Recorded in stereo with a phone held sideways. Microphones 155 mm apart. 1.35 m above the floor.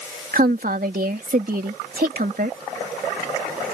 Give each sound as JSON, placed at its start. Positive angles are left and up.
{"t": 0.3, "sound": "a woman speaking", "side_deg": -70}